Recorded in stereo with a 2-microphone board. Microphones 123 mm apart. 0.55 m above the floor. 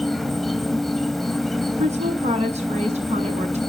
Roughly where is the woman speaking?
Right.